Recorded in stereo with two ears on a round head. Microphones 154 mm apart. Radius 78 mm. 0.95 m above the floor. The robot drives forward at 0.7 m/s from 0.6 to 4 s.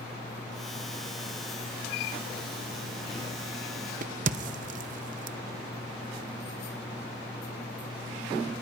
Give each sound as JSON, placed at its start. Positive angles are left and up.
{"t": 4.0, "sound": "a crack", "side_deg": -50, "distance_m": 0.7}